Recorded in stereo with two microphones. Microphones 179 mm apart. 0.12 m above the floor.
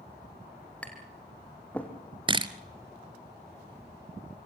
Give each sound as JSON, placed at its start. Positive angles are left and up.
{"t": 0.8, "sound": "tapping", "side_deg": 10, "distance_m": 3.0}
{"t": 2.3, "sound": "a camera shutter", "side_deg": -25, "distance_m": 1.0}